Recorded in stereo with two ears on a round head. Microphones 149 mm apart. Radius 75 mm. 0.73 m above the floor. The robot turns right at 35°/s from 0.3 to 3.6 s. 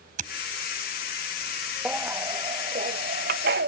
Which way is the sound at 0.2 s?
50° right (ahead or behind).